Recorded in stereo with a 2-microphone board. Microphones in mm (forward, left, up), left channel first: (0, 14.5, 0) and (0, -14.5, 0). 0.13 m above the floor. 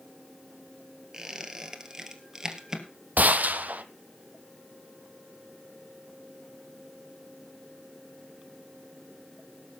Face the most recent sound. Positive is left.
turn(degrees=-75)  # may be behind; listen again after turning